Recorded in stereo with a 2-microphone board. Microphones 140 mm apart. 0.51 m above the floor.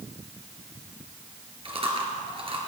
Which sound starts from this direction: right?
Chewing, at 1.6 s.